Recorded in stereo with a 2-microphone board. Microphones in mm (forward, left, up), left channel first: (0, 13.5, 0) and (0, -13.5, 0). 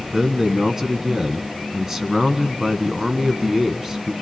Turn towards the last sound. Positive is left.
turn(degrees=-15)  # may be behind; listen again after turning